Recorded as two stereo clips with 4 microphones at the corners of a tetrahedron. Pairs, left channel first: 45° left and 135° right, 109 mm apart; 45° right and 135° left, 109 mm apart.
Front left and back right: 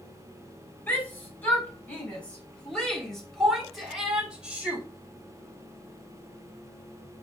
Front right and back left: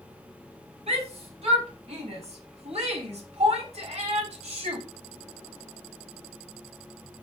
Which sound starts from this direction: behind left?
A shout, at 0.9 s.